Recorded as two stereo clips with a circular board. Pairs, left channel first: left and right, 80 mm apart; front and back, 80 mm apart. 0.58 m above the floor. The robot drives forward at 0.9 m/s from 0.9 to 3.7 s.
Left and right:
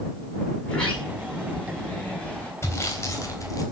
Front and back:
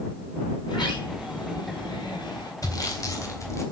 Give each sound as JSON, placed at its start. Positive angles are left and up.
{"t": 0.6, "sound": "a sliding door", "azimuth_deg": 15, "distance_m": 5.5}
{"t": 2.6, "sound": "sawing", "azimuth_deg": 35, "distance_m": 3.5}